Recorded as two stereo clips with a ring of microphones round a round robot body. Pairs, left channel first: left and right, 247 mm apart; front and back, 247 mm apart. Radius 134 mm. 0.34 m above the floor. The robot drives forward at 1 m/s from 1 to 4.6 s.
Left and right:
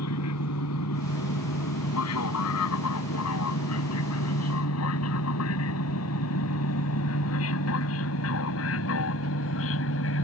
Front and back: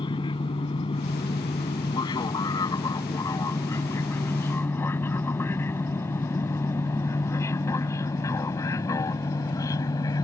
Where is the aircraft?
70° left; by 10.2 s 75° left.